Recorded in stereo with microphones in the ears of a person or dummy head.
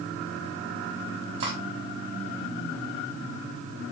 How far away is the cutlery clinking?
About 3 m.